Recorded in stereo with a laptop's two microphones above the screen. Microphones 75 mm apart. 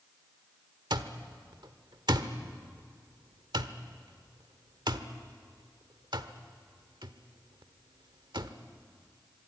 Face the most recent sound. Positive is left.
turn(degrees=-70)  # may be behind; listen again after turning